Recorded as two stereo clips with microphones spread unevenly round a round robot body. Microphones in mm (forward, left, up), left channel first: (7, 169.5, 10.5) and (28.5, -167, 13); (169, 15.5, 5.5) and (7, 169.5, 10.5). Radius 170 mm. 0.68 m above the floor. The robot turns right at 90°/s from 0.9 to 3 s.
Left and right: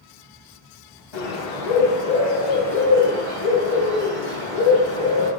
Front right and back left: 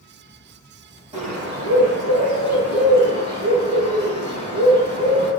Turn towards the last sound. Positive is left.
turn(degrees=-115)